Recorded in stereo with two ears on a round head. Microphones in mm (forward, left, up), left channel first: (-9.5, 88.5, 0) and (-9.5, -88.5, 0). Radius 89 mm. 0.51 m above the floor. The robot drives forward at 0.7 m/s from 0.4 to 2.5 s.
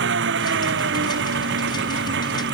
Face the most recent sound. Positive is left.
turn(degrees=-65)  # may be behind; listen again after turning